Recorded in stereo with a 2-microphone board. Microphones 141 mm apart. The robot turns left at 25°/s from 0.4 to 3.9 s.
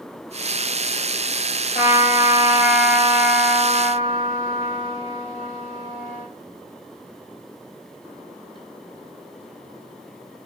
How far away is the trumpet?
About 1.0 m.